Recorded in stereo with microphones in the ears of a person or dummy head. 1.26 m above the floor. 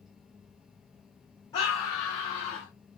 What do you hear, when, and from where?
0.0 s a fan: 5° right (ahead or behind), 0.7 m
1.5 s a scream: 30° left (ahead or behind), 1.2 m